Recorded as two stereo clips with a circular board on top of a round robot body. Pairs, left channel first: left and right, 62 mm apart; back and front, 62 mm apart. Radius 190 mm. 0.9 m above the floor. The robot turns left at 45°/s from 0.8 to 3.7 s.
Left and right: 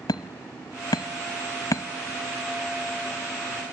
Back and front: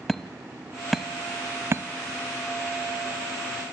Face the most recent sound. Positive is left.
turn(degrees=-35)